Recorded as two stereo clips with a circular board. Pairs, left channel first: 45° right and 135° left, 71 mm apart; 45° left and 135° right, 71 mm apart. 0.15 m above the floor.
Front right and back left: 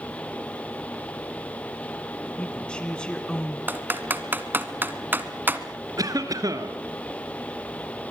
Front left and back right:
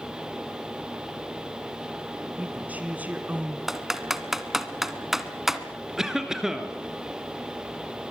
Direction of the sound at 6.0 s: 145° left.